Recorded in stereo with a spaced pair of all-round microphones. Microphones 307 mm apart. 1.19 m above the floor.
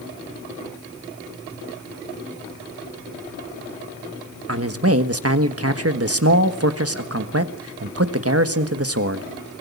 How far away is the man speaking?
About 1.4 m.